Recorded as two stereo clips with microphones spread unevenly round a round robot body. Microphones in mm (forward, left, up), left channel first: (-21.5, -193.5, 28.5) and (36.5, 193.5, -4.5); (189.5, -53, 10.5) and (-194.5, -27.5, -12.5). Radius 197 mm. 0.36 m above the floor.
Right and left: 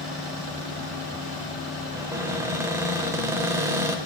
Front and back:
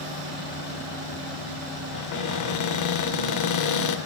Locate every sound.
1.9 s a cupboard door: 5° left, 0.7 m